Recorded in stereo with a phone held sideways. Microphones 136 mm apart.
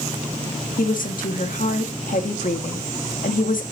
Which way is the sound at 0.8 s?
80° left.